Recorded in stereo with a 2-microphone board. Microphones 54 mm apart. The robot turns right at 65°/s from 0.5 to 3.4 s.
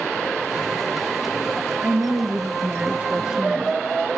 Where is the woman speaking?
20° right (ahead or behind), 1.2 m; by 3.8 s 15° right (ahead or behind), 1.2 m.